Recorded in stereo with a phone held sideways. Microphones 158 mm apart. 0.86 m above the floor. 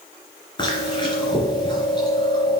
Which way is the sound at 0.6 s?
30° left (ahead or behind).